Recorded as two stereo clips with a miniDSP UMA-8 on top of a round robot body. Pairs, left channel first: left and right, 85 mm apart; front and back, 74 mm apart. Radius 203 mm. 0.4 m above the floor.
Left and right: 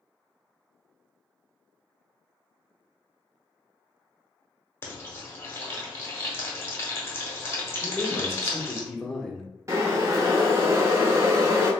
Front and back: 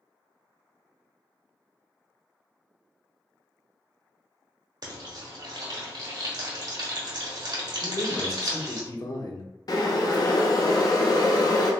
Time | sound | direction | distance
4.8 | frying | 150° left | 1.1 m
7.8 | a man speaking | 10° left | 1.0 m
9.7 | boiling | 35° right | 0.8 m